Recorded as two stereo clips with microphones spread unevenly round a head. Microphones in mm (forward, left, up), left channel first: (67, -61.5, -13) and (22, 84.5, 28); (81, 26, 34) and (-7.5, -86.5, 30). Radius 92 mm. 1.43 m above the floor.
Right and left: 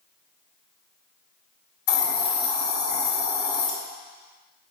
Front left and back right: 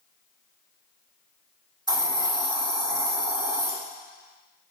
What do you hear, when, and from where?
1.9 s a hiss: 70° right, 3 m